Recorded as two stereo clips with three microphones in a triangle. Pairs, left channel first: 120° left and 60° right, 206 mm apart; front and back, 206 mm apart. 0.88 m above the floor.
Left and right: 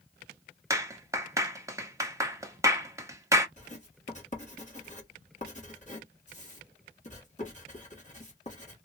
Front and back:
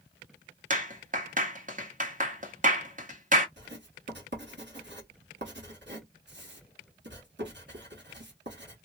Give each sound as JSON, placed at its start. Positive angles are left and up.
{"t": 0.7, "sound": "a clap", "azimuth_deg": -135, "distance_m": 1.0}
{"t": 3.6, "sound": "writing", "azimuth_deg": 170, "distance_m": 1.5}